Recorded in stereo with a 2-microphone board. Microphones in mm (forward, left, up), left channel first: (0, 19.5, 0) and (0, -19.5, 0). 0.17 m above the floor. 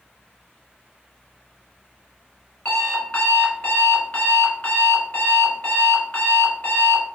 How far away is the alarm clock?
About 1.2 m.